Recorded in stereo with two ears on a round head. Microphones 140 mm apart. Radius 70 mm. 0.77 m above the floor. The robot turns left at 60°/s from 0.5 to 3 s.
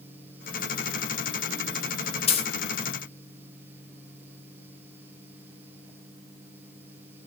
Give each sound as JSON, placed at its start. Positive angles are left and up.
{"t": 2.3, "sound": "a dropped coin", "side_deg": 35, "distance_m": 0.6}